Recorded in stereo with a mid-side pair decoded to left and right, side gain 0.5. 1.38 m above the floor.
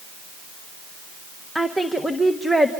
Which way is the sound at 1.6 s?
Straight ahead.